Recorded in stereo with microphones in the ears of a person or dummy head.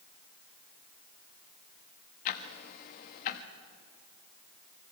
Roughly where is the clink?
No clink in this recording.